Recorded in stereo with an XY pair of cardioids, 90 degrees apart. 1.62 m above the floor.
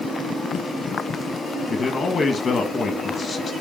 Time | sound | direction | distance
1.7 | a man speaking | 45° left | 1.6 m